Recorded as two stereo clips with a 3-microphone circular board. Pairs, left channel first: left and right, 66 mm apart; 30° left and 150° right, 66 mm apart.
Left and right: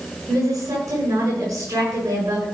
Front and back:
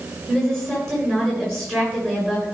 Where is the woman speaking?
55° right, 8 m.